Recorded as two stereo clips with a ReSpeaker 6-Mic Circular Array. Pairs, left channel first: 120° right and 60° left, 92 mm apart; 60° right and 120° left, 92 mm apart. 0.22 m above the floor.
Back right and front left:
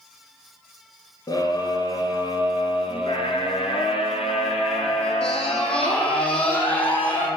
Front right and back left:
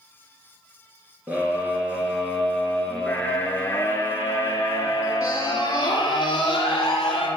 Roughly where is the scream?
Behind.